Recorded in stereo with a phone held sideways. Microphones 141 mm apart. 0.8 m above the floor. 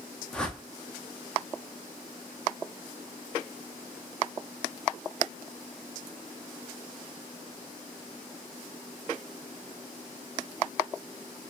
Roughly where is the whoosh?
Centre.